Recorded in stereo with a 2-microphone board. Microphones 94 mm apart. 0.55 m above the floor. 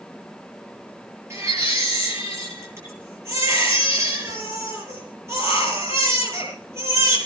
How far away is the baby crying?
About 9 m.